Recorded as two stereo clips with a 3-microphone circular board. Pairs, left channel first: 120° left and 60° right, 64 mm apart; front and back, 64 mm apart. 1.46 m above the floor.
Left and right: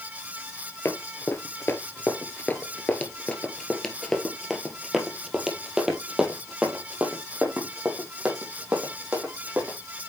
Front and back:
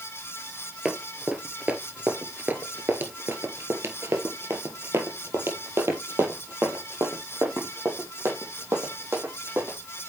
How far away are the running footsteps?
About 1.9 m.